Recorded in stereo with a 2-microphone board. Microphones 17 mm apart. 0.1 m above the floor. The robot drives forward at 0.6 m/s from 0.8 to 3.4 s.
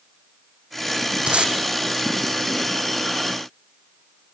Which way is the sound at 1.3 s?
80° right.